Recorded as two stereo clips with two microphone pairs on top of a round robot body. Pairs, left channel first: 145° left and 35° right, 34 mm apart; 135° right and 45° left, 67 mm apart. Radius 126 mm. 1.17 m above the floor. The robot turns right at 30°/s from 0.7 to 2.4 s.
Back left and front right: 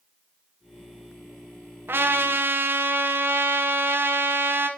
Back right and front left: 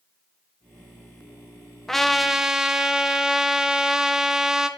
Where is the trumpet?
50° right, 1.2 m; by 4.7 s 35° right, 1.2 m.